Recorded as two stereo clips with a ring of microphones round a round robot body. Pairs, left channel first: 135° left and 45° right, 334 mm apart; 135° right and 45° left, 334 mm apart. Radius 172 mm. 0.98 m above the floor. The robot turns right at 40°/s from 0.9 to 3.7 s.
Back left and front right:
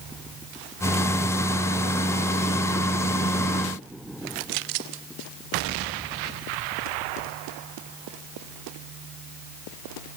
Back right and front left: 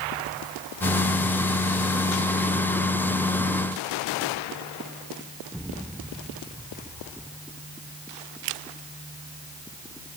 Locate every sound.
Only background noise.